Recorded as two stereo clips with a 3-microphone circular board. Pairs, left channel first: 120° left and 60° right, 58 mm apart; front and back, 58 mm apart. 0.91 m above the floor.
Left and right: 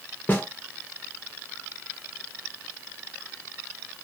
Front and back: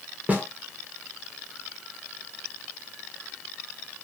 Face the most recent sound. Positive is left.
turn(degrees=145)